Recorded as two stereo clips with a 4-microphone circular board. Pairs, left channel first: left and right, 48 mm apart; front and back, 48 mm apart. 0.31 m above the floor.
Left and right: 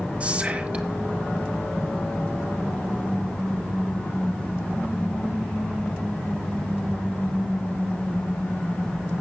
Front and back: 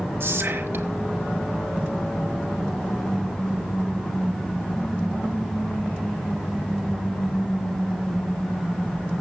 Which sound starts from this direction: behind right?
Whispering, at 0.2 s.